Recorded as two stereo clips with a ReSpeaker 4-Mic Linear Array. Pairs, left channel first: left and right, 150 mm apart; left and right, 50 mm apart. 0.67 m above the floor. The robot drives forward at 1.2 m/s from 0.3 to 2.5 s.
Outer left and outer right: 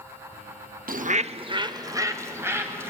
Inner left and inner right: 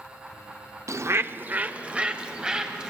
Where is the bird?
75° right (ahead or behind), 0.6 m; by 2.9 s 15° right (ahead or behind), 2 m.